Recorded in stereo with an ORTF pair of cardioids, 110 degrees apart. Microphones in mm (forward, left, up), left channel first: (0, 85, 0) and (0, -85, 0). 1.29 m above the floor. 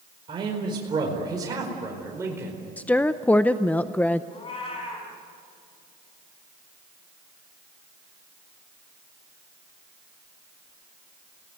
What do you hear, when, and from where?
0.3 s a man speaking: 30° right, 5 m; by 2.6 s 15° right, 4.5 m
2.8 s a woman speaking: 10° left, 0.6 m
4.3 s a cat meowing: 35° left, 6 m